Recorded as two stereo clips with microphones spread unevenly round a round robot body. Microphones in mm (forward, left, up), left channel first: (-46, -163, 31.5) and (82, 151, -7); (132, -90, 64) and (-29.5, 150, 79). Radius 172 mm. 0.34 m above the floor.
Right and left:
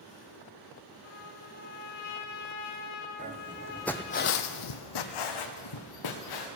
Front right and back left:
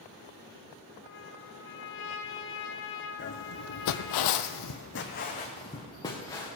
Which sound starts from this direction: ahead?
Footsteps, at 3.2 s.